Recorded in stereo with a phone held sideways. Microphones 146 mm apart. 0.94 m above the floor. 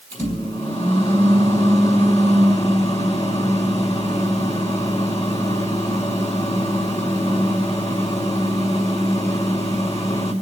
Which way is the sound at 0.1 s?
50° left (ahead or behind).